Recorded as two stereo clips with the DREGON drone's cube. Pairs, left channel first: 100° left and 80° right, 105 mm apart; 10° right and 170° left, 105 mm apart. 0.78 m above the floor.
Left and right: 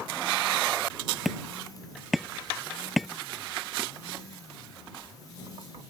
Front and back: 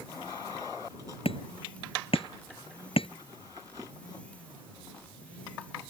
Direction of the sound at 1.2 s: 10° left.